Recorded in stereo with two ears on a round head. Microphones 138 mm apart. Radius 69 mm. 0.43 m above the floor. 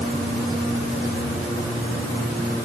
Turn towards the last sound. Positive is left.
No sound to turn to.